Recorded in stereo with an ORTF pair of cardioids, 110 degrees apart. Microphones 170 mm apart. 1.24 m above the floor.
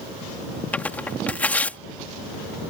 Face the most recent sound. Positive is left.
turn(degrees=10)